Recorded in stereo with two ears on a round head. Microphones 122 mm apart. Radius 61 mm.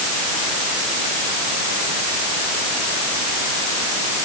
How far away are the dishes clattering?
No dishes clattering in this recording.